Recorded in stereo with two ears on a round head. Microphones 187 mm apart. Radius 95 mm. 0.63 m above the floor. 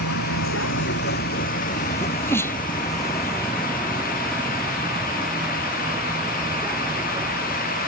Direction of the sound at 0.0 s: 75° left (ahead or behind).